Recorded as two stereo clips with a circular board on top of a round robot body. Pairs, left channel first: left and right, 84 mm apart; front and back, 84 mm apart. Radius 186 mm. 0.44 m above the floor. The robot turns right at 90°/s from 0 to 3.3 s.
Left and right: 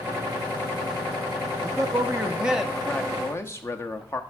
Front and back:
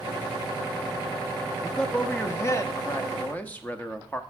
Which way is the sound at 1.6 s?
95° right.